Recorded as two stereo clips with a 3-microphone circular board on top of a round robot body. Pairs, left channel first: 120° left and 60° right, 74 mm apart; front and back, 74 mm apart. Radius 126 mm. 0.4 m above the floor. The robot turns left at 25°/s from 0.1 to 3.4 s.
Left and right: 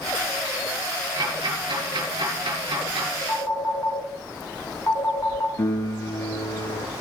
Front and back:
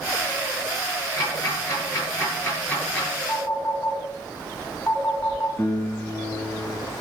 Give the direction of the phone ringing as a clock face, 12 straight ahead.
10 o'clock.